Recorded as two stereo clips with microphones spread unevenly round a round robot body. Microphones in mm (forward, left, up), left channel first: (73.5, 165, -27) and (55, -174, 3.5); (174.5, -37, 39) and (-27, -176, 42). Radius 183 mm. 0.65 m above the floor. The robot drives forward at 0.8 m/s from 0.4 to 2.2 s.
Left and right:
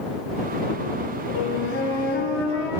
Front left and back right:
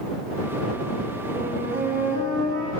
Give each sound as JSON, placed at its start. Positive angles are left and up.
{"t": 1.3, "sound": "a flute", "azimuth_deg": 145, "distance_m": 4.0}